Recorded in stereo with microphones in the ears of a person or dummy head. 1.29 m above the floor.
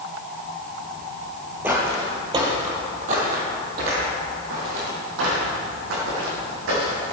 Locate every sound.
1.6 s footsteps: 10° right (ahead or behind), 1.7 m; by 7.1 s 75° right (ahead or behind), 5 m